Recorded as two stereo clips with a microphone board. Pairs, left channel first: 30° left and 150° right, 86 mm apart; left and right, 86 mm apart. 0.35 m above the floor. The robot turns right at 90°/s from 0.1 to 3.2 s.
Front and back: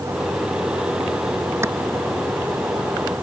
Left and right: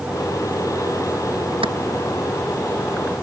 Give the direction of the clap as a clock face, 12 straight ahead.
3 o'clock.